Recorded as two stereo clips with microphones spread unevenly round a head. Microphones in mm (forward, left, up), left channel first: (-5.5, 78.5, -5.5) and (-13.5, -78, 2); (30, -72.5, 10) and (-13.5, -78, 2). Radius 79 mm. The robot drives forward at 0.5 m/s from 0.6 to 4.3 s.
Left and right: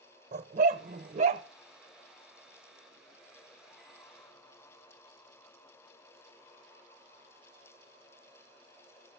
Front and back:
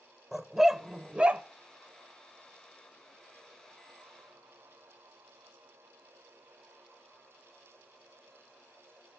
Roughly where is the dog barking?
Right.